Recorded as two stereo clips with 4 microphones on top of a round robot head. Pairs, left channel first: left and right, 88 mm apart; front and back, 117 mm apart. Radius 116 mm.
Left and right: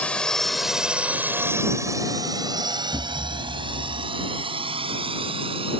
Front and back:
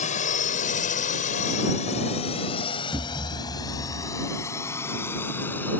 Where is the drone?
15° left; by 5.8 s 75° right.